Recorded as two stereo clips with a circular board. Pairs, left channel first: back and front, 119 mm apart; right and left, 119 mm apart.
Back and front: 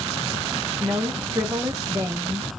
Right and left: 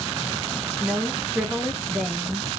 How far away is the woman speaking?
About 0.9 m.